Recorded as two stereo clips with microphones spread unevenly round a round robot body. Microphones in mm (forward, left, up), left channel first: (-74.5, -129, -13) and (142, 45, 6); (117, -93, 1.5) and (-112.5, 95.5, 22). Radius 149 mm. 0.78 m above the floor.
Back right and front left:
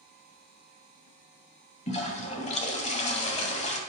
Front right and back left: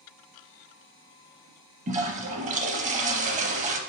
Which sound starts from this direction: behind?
A toilet flushing, at 1.9 s.